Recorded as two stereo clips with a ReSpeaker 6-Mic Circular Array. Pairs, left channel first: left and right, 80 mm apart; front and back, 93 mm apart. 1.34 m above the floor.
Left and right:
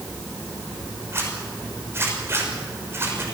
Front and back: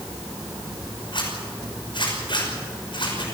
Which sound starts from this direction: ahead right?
A zipper, at 1.1 s.